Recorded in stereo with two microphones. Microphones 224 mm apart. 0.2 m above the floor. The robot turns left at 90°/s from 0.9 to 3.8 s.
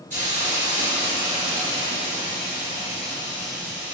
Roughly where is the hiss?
Behind right.